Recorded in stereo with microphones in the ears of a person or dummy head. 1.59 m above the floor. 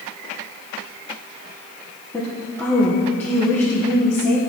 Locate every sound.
2.1 s a woman speaking: 10° left (ahead or behind), 1.2 m